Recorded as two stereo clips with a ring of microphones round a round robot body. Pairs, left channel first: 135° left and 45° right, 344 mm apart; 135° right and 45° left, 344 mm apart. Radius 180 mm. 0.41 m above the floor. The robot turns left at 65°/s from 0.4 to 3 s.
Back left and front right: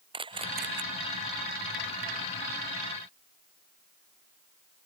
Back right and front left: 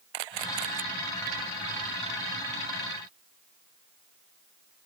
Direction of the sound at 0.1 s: 30° left.